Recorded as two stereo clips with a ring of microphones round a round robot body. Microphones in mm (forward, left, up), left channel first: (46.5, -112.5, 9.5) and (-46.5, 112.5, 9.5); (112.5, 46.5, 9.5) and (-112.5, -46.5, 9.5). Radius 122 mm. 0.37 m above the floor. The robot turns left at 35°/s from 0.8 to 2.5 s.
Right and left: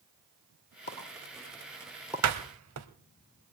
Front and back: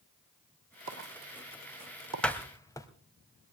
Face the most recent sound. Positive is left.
turn(degrees=100)